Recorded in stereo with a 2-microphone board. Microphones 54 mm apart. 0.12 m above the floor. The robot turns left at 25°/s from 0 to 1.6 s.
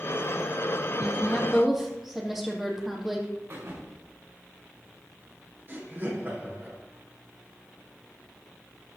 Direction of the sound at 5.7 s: 40° right (ahead or behind).